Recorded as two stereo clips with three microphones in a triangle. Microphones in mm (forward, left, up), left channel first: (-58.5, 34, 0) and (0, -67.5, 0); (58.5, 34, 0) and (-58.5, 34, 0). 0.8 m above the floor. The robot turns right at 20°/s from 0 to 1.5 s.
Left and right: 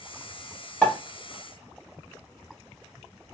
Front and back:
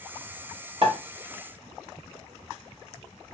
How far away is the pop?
About 1.3 m.